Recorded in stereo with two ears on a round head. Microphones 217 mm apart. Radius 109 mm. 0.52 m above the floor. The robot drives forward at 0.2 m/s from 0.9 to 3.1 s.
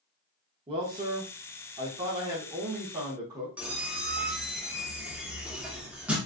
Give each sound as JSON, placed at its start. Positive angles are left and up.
{"t": 0.7, "sound": "a man speaking", "side_deg": -25, "distance_m": 0.7}
{"t": 3.6, "sound": "a squeak", "side_deg": -5, "distance_m": 0.5}